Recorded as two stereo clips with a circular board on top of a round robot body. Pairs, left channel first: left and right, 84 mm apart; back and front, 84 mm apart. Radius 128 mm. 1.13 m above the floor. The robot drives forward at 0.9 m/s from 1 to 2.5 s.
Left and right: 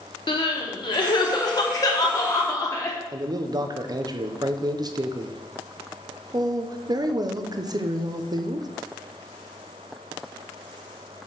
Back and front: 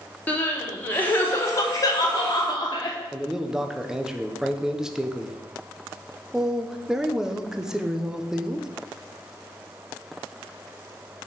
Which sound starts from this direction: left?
Crying, at 0.3 s.